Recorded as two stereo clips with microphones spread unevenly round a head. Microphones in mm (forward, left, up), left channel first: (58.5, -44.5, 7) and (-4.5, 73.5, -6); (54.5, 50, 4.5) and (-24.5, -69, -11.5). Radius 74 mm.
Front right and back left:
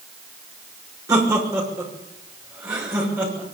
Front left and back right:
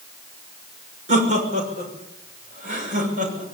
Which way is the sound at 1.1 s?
170° right.